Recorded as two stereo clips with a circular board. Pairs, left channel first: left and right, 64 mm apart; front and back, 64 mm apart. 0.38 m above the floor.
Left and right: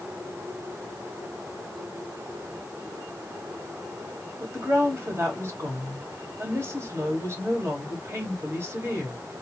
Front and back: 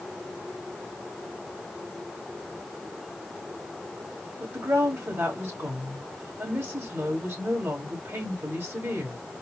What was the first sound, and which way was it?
A woman speaking, 135° right.